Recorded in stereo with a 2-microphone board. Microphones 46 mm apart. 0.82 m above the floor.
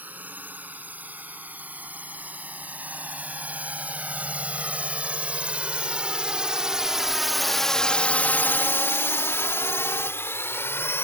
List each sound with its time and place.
0.0 s a drone: 35° right (ahead or behind); by 11.1 s 60° left (ahead or behind)